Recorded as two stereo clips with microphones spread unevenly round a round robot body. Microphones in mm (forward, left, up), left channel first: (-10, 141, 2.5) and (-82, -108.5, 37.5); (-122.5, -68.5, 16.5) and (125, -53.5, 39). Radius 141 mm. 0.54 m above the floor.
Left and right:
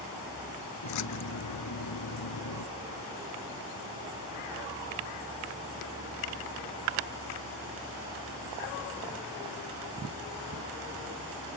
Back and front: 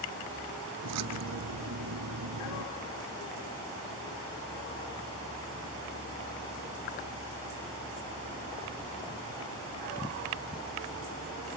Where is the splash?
40° left.